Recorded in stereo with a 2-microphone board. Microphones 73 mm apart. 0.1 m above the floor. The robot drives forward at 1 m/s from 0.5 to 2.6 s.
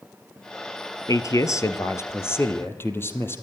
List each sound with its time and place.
1.1 s a man speaking: 50° left (ahead or behind), 1.6 m; by 3.4 s 30° left (ahead or behind), 2.5 m